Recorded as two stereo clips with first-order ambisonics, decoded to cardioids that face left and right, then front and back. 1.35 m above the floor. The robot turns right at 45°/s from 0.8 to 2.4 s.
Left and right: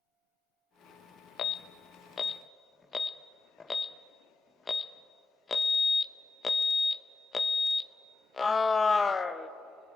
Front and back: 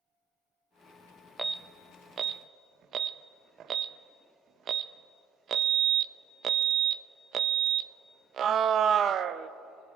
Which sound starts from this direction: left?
An alarm, at 1.4 s.